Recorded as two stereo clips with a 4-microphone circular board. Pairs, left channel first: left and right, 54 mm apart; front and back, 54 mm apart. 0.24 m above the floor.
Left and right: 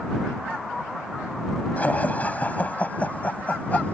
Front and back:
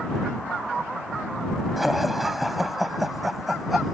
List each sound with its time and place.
1.8 s laughter: 95° left